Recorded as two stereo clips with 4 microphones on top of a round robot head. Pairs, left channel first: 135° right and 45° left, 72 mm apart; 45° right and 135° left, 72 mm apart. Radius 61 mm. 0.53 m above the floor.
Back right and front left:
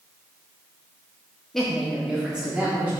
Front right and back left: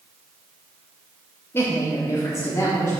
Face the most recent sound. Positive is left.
turn(degrees=-15)